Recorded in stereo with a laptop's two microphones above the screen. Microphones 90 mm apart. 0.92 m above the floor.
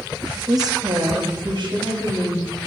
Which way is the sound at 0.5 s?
45° right (ahead or behind).